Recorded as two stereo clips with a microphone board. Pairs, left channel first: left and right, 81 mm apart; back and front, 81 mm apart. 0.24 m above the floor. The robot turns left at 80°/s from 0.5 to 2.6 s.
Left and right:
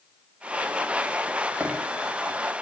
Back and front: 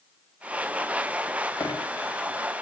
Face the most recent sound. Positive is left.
turn(degrees=120)